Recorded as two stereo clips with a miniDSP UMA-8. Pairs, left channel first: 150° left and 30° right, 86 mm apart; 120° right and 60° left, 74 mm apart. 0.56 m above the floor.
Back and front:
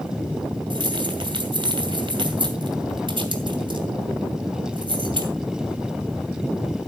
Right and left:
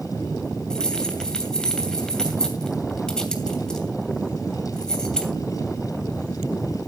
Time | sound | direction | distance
0.7 | keys jangling | 40° right | 2.5 m